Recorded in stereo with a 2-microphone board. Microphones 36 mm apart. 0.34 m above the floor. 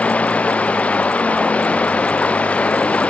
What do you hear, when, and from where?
0.0 s running water: 40° left (ahead or behind)